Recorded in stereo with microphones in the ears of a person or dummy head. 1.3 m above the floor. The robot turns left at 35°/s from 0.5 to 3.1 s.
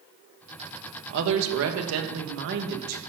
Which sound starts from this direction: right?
A woman speaking, at 1.1 s.